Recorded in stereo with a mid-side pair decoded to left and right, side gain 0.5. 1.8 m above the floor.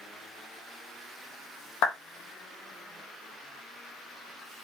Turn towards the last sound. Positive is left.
turn(degrees=70)